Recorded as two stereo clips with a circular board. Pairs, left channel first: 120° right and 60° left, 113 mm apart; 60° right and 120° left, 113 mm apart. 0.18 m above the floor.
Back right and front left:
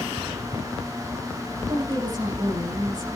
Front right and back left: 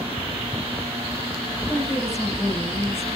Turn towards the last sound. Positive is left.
turn(degrees=10)